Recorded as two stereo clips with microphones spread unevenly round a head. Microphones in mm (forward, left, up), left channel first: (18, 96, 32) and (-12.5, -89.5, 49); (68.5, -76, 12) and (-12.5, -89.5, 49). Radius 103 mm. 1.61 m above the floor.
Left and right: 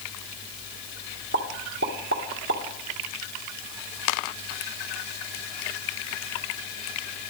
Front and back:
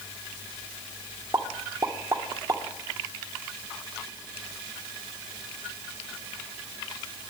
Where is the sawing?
No sawing in this recording.